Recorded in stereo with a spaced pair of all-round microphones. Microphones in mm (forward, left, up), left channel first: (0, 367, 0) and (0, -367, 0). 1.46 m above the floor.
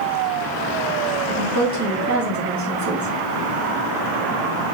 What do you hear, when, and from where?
1.3 s a woman speaking: 20° right (ahead or behind), 2.5 m